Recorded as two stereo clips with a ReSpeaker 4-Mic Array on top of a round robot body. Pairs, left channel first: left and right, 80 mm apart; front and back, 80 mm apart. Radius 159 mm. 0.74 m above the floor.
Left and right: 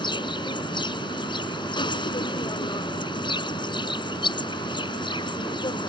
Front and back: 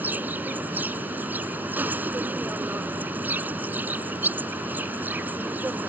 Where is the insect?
115° left.